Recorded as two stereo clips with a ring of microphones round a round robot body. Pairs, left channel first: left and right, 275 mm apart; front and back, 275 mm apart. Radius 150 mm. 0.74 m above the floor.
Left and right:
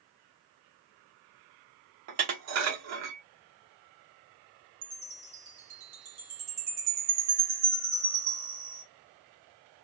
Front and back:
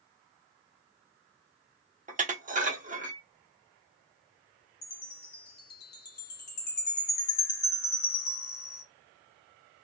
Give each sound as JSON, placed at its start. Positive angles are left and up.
{"t": 2.1, "sound": "dishes clattering", "azimuth_deg": -115, "distance_m": 1.1}
{"t": 4.8, "sound": "a chime", "azimuth_deg": -55, "distance_m": 2.0}